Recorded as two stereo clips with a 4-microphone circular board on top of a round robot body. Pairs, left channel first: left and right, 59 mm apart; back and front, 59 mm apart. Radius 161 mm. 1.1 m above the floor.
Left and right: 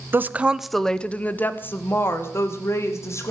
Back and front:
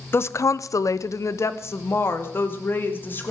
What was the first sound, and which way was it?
A woman speaking, 135° right.